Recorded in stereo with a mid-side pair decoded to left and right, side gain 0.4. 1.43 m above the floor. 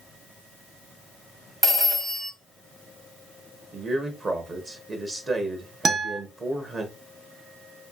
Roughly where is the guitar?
Ahead right.